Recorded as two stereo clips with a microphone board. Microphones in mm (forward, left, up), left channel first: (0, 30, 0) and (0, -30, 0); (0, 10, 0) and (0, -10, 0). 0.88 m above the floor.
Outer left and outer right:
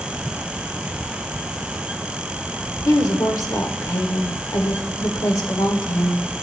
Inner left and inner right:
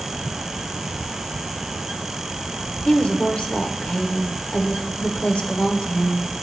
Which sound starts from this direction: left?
A woman speaking, at 2.9 s.